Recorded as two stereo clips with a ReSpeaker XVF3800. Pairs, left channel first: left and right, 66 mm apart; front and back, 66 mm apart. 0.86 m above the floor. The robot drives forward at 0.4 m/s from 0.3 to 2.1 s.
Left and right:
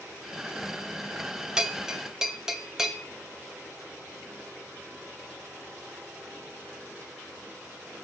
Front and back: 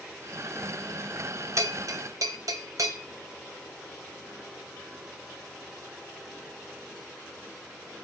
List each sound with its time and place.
1.6 s a bell: 165° right, 1.0 m; by 3.0 s 170° right, 1.2 m